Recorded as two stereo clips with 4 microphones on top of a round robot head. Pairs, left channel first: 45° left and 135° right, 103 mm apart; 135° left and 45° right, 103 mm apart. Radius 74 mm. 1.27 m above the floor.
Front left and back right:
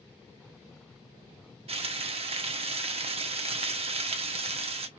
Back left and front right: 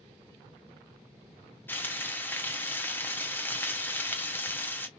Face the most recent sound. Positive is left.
turn(degrees=-155)